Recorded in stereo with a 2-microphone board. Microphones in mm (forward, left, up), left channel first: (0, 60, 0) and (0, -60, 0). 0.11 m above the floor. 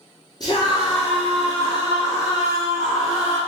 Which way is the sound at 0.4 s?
35° left (ahead or behind).